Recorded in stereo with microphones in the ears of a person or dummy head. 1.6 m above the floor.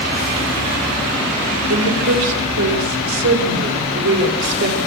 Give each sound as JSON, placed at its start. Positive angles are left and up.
{"t": 1.7, "sound": "a woman speaking", "side_deg": -80, "distance_m": 6.0}